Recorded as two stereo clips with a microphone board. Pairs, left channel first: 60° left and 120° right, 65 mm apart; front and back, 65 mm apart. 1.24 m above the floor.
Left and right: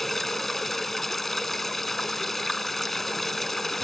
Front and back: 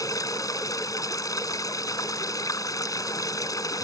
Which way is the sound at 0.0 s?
25° right.